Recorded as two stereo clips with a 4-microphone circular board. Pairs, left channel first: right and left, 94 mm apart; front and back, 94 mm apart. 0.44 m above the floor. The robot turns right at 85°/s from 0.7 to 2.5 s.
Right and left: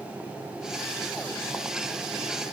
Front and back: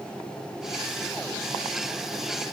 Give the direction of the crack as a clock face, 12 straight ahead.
I don't hear a crack.